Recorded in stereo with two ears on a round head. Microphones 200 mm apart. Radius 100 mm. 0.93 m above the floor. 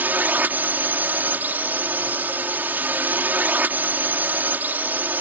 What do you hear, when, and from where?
0.0 s a drone: 10° right (ahead or behind)